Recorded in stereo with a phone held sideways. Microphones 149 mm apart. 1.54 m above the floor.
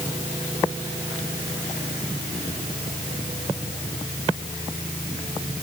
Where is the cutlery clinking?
I don't hear cutlery clinking.